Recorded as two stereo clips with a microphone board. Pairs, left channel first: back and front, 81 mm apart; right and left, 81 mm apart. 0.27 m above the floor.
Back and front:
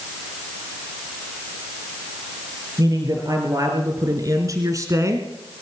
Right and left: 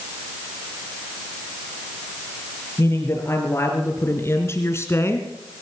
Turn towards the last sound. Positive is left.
turn(degrees=-40)